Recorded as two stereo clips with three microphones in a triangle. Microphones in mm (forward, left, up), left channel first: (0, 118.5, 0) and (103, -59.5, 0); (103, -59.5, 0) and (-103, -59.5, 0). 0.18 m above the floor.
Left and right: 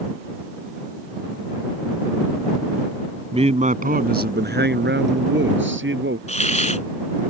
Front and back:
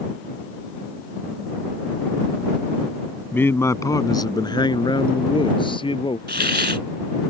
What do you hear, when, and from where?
3.3 s a man speaking: 70° right; by 6.2 s 65° right
6.3 s a hiss: 165° left